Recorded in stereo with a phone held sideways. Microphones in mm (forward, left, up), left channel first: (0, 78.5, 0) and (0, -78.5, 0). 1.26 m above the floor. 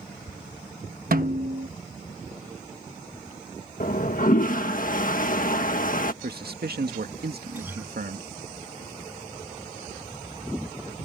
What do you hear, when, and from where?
1.1 s a snare drum: 65° right (ahead or behind)
3.8 s a toilet flushing: 60° left (ahead or behind)
6.2 s a man speaking: 85° right
7.5 s a guitar: 15° right (ahead or behind)